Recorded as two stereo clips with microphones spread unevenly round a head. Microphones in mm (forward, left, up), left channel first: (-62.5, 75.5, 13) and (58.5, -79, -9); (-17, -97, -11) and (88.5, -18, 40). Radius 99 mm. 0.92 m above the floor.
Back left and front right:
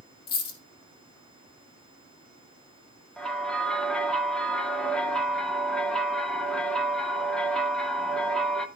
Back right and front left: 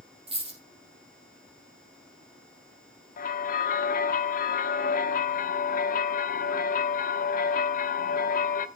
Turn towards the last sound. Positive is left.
turn(degrees=-145)